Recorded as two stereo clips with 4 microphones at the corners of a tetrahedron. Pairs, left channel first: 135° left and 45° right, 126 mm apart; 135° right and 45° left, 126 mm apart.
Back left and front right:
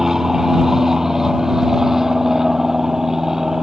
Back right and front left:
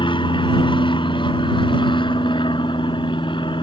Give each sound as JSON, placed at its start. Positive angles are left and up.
{"t": 0.0, "sound": "an aircraft", "azimuth_deg": -130}